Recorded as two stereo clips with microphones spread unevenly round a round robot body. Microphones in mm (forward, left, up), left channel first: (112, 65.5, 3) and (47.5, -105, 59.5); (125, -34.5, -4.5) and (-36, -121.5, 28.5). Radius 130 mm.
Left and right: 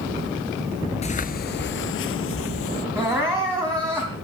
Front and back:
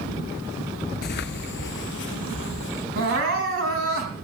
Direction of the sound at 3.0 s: 165° left.